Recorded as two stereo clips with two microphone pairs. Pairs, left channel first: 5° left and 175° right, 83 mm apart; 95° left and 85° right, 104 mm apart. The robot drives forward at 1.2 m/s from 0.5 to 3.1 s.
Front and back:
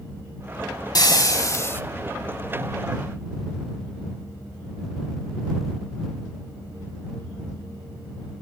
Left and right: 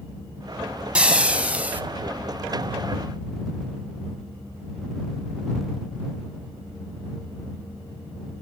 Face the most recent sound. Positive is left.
turn(degrees=-165)